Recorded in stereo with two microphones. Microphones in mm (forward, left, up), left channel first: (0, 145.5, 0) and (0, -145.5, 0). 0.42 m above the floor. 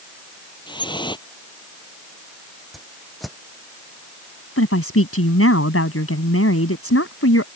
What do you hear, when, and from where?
0.7 s dripping: 15° left (ahead or behind)
2.7 s a whoosh: centre (ahead or behind)
4.6 s a woman speaking: 50° left (ahead or behind)